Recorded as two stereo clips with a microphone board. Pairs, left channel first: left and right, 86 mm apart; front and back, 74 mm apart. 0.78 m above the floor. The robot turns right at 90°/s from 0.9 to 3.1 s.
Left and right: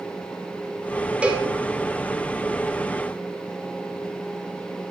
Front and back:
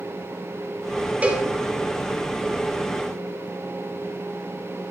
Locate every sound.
1.2 s a cowbell: 145° right, 0.9 m; by 1.5 s 120° right, 0.9 m